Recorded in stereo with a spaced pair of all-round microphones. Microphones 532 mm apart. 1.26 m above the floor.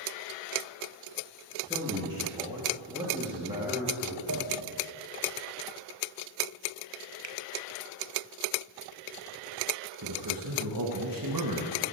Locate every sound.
1.7 s a man speaking: 10° right (ahead or behind), 2 m
4.3 s a pop: 40° right (ahead or behind), 0.7 m
7.2 s a finger snap: 55° right (ahead or behind), 0.6 m
10.0 s a man speaking: 40° right (ahead or behind), 1.3 m